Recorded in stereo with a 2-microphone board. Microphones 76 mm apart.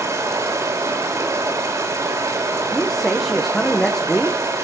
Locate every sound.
0.0 s running water: 45° right (ahead or behind), 3.5 m
2.7 s a man speaking: 5° left (ahead or behind), 1.5 m